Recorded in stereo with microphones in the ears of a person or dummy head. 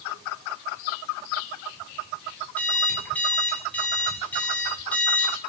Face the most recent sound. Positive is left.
turn(degrees=10)  # may be behind; listen again after turning